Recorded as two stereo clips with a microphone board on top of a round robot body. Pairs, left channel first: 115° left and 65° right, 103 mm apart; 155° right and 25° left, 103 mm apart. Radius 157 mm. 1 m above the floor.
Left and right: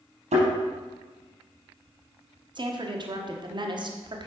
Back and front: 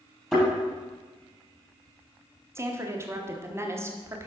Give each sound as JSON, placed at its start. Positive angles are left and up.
{"t": 0.3, "sound": "a thud", "azimuth_deg": -70, "distance_m": 4.0}
{"t": 2.5, "sound": "a woman speaking", "azimuth_deg": -35, "distance_m": 1.3}